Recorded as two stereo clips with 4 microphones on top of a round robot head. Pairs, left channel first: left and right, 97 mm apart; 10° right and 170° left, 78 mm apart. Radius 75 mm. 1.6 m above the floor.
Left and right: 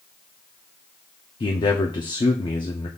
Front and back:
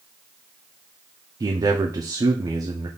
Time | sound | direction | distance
1.4 | a man speaking | 130° left | 0.5 m